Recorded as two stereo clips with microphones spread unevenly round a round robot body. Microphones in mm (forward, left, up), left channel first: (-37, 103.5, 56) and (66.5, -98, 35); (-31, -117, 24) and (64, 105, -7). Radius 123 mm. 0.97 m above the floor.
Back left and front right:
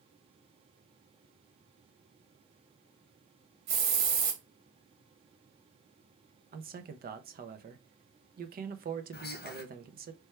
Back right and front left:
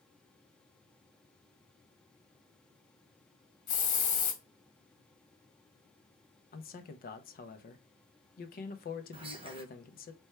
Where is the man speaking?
65° right, 0.7 m.